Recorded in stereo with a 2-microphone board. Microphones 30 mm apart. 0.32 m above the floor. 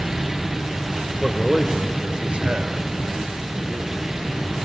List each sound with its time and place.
1.2 s a man speaking: 5° left (ahead or behind), 1.4 m; by 4.0 s 50° right (ahead or behind), 4 m